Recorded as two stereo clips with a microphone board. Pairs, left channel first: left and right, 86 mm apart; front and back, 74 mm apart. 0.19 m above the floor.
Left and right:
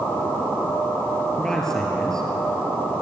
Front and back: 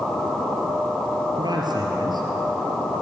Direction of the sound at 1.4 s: 175° left.